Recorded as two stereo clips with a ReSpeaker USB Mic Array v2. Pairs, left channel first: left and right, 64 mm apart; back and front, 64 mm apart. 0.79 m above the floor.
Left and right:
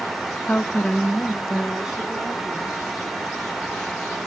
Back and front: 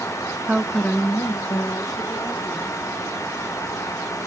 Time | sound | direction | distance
0.5 | a woman speaking | 50° left | 0.7 m